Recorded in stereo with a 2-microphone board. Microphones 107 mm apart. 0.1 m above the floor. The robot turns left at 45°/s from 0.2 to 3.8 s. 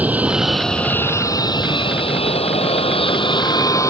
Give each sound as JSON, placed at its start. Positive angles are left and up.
{"t": 0.0, "sound": "an aircraft", "azimuth_deg": -165}